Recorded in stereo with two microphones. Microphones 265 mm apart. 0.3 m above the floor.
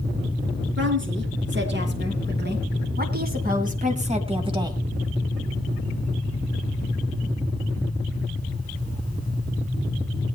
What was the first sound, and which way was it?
A woman speaking, 45° right (ahead or behind).